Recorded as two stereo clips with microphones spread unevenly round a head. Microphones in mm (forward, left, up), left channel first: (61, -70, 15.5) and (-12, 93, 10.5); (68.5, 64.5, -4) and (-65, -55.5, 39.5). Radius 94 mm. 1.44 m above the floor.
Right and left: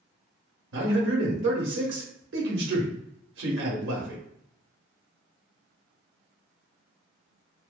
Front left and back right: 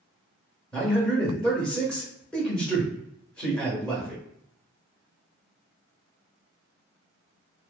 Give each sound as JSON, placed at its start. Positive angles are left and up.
{"t": 0.7, "sound": "a man speaking", "azimuth_deg": 120, "distance_m": 0.8}